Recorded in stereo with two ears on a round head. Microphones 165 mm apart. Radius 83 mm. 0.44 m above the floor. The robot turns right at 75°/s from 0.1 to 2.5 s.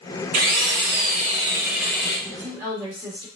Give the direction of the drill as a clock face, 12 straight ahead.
4 o'clock.